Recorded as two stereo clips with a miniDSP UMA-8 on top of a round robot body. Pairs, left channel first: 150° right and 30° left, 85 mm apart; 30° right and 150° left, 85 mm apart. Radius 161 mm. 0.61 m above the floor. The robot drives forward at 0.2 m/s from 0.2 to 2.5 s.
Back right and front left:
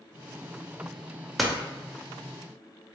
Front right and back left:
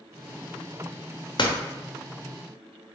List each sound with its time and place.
1.4 s a door slam: 60° right, 0.8 m